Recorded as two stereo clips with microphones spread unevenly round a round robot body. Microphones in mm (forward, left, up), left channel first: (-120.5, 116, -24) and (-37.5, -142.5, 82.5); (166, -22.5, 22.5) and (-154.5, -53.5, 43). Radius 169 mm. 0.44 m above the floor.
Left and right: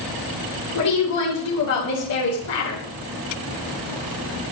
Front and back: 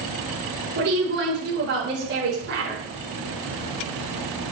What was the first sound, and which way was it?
A woman speaking, 125° left.